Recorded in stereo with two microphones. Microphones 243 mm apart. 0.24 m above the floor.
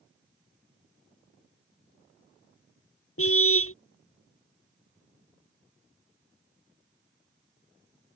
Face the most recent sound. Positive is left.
turn(degrees=65)  # may be behind; listen again after turning